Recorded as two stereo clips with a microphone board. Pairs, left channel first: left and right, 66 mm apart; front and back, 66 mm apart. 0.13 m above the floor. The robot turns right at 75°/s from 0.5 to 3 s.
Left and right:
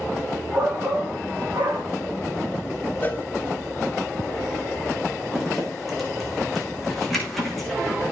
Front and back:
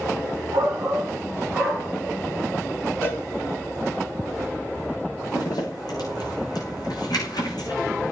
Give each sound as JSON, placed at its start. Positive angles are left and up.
{"t": 0.5, "sound": "a shout", "azimuth_deg": -170, "distance_m": 8.0}
{"t": 3.0, "sound": "a cowbell", "azimuth_deg": 40, "distance_m": 1.7}
{"t": 5.3, "sound": "a zipper", "azimuth_deg": 5, "distance_m": 8.0}